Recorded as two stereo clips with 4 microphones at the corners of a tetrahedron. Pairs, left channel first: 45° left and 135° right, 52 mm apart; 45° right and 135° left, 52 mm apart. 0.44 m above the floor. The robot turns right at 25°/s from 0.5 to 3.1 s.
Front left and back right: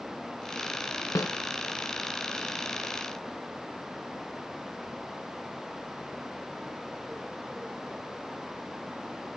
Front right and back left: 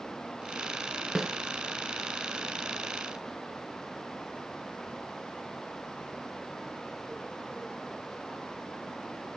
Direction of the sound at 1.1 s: 55° left.